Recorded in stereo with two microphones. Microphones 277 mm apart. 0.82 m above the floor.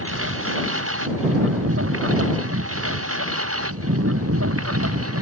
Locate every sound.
0.0 s a lawn mower: 50° right (ahead or behind); by 5.2 s 55° right (ahead or behind)